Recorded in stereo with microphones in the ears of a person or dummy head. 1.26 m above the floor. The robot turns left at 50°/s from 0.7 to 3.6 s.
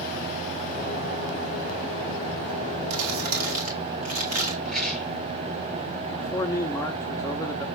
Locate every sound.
2.9 s crumpling: 95° right, 2 m; by 4.5 s 130° right, 2 m
4.7 s a rattle: centre (ahead or behind), 4.5 m
6.1 s a man speaking: 15° left (ahead or behind), 1.1 m